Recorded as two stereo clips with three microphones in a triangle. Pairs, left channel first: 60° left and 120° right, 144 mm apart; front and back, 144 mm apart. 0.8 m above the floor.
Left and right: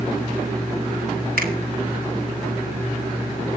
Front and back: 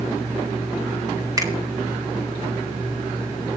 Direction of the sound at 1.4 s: 115° right.